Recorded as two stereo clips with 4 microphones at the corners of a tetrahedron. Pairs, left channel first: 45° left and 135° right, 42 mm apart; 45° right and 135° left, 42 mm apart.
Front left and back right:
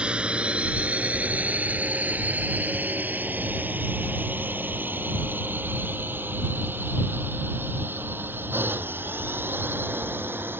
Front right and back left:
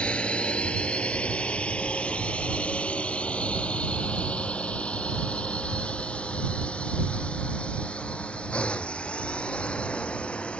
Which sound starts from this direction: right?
A drone, at 0.0 s.